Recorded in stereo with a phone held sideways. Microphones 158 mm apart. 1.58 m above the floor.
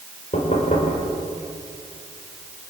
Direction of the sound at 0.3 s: 45° left (ahead or behind).